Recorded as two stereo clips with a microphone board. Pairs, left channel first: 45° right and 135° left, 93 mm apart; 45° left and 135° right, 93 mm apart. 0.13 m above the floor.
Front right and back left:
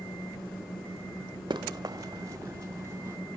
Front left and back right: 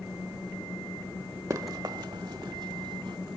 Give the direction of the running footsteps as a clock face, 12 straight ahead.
6 o'clock.